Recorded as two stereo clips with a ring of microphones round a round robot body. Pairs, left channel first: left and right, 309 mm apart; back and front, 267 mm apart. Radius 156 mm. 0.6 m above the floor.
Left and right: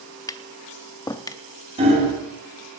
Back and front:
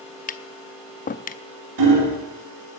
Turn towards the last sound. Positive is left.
turn(degrees=-20)